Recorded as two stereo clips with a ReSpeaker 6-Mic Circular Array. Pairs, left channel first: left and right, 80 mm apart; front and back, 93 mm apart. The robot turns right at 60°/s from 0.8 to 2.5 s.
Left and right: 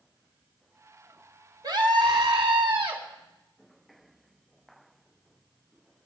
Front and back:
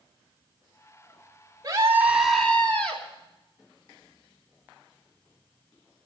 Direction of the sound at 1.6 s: 130° right.